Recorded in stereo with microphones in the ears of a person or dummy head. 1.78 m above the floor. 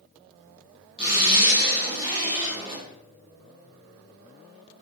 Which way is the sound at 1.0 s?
25° right (ahead or behind).